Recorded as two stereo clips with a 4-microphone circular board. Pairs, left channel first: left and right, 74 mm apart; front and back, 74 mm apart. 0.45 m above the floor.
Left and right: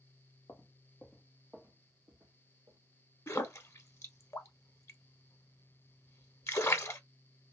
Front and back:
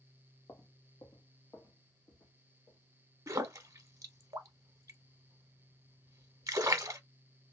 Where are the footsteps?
40° left, 0.7 m; by 2.8 s 45° right, 1.3 m.